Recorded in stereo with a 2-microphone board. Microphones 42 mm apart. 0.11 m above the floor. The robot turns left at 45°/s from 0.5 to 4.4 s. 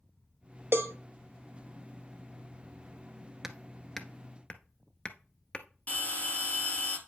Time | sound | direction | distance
0.7 | a cowbell | 60° right (ahead or behind) | 0.6 m
3.4 | hammering | 10° right (ahead or behind) | 0.7 m
5.9 | a bell | 35° left (ahead or behind) | 1.9 m